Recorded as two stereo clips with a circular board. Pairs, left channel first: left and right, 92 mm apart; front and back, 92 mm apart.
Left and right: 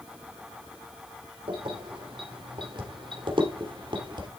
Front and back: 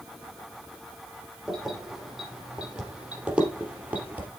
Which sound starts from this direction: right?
Keys jangling, at 1.5 s.